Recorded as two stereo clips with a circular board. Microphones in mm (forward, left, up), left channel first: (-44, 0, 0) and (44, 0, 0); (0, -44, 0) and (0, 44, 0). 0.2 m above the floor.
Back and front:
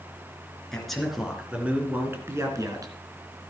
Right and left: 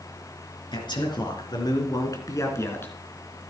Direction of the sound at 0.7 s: 95° right.